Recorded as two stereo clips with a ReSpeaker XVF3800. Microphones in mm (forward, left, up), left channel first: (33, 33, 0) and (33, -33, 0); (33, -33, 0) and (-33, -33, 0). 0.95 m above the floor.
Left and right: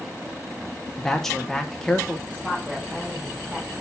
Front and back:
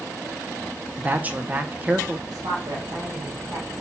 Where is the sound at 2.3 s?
150° right, 4 m.